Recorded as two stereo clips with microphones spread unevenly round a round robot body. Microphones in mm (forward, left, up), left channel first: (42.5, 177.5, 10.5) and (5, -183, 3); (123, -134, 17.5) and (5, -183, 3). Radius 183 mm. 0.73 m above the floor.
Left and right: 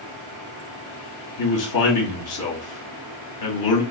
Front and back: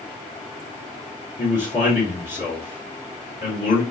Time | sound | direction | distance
1.4 | a man speaking | 65° left | 1.5 m